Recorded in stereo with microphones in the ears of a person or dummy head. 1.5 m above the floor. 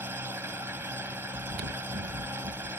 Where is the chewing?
50° right (ahead or behind).